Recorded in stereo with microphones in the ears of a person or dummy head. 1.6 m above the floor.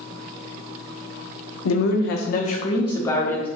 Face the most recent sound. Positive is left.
turn(degrees=10)  # may be behind; listen again after turning